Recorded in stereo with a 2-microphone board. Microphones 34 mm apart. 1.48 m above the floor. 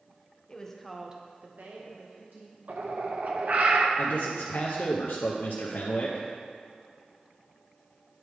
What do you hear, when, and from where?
0.5 s a woman speaking: 20° left (ahead or behind), 1.0 m; by 2.6 s 85° right, 1.9 m
2.7 s a bird: 50° right (ahead or behind), 0.6 m
4.0 s a man speaking: 75° left (ahead or behind), 0.7 m